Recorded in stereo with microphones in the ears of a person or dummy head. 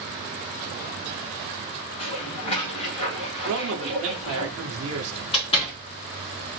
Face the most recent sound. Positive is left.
turn(degrees=25)  # may be behind; listen again after turning